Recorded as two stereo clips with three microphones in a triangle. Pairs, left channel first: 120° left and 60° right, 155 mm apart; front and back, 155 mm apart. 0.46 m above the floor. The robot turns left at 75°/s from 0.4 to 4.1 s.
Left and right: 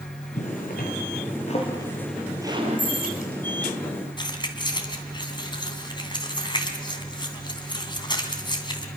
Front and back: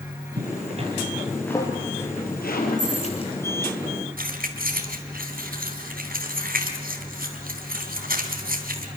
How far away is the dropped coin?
About 8.5 m.